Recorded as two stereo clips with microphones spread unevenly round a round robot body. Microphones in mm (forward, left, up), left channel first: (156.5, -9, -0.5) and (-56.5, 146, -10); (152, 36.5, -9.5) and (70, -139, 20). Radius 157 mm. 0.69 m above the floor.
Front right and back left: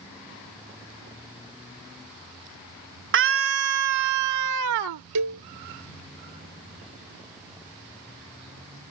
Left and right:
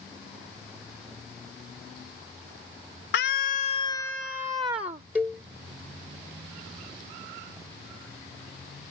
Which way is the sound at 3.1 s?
105° left.